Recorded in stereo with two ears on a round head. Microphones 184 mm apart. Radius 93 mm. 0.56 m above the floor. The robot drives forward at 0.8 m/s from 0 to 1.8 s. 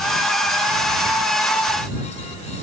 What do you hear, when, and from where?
Only background noise.